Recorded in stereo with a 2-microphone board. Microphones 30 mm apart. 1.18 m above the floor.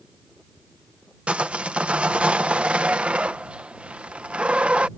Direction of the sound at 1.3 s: 45° right (ahead or behind).